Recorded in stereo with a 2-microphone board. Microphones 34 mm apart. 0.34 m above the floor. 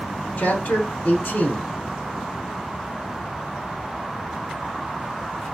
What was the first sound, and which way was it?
A man speaking, 60° left (ahead or behind).